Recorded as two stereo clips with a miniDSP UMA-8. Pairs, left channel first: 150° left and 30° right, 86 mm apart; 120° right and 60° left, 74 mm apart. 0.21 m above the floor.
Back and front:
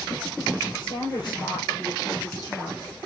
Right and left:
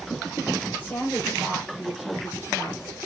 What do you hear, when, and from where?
0.8 s a woman speaking: 175° left, 5.5 m; by 3.0 s 175° right, 4 m